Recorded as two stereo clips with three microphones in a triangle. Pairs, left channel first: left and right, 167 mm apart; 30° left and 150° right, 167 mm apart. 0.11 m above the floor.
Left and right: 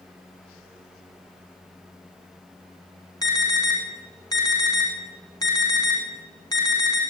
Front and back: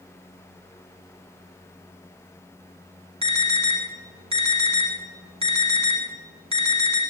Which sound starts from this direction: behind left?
An alarm, at 3.2 s.